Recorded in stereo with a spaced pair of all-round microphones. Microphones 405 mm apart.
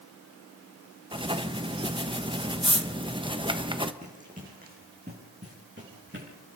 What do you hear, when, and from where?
1.1 s writing: 10° right (ahead or behind), 1.1 m
4.0 s running footsteps: 15° right (ahead or behind), 5 m; by 6.3 s 30° right (ahead or behind), 8 m